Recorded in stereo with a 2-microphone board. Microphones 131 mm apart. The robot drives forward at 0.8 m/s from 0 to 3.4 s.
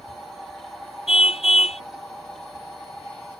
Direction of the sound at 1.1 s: 50° left (ahead or behind).